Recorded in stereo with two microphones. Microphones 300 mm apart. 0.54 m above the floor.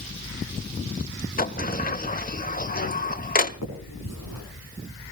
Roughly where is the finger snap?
Left.